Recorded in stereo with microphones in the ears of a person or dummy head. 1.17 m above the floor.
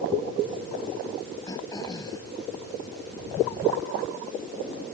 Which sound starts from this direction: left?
Throat clearing, at 1.5 s.